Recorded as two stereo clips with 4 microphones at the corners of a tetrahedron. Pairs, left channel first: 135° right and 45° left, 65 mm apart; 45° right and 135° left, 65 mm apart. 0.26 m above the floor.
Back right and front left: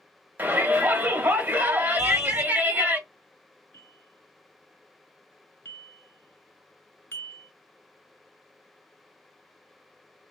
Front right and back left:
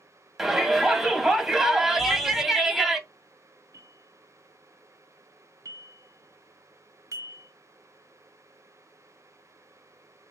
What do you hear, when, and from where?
0.4 s a shout: 55° left, 1.1 m
2.0 s crumpling: 40° left, 1.0 m
3.7 s a bell: 170° left, 0.7 m